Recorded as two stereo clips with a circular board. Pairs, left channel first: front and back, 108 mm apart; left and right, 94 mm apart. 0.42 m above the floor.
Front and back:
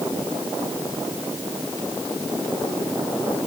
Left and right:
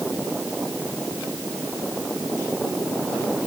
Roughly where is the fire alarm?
No fire alarm in this recording.